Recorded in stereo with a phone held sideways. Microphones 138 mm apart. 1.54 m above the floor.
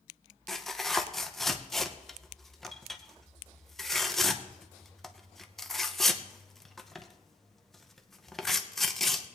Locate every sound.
0.5 s tearing paper: centre (ahead or behind), 0.7 m